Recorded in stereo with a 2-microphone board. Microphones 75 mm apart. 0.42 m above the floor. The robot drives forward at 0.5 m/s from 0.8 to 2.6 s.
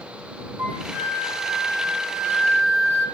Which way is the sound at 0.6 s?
35° right (ahead or behind).